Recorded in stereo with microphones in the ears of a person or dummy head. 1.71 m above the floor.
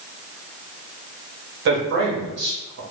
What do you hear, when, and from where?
1.6 s a man speaking: 60° right (ahead or behind), 1.1 m